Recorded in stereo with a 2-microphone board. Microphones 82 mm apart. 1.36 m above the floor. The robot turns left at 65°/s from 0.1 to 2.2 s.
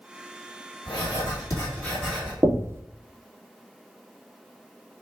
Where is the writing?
80° left, 3 m; by 2.3 s 10° right, 3 m.